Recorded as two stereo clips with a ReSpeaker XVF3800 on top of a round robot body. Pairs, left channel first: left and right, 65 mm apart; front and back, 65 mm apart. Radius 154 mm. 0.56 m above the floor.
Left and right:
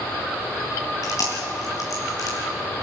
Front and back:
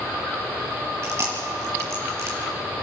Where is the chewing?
130° left, 4 m.